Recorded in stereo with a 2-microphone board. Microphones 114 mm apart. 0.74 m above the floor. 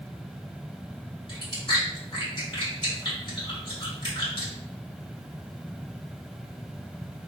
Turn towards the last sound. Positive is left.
turn(degrees=45)  # may be behind; listen again after turning